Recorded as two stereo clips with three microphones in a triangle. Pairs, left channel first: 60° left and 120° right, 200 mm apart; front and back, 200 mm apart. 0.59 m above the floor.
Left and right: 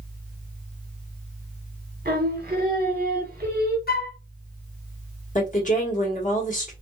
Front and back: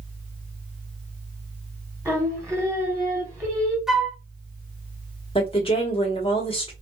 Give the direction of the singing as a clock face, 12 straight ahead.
4 o'clock.